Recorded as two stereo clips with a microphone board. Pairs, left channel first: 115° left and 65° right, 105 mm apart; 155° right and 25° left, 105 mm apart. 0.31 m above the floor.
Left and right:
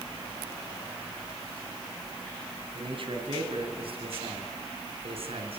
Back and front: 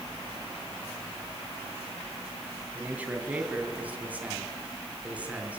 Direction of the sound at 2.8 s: 50° right.